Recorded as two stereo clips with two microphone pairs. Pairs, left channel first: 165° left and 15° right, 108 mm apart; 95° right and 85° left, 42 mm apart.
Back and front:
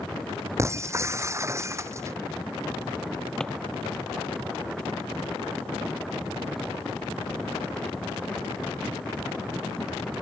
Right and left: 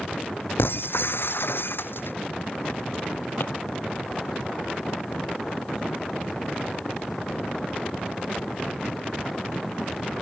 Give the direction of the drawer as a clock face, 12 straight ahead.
4 o'clock.